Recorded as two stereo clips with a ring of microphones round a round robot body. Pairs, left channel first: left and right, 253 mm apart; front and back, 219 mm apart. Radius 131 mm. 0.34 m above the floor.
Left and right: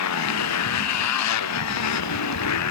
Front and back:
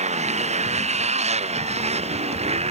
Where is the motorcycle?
120° left; by 2.7 s 115° left.